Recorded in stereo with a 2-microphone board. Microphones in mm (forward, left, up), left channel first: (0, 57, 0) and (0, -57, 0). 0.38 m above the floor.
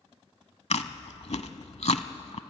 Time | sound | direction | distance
0.7 | chewing | 75° left (ahead or behind) | 0.8 m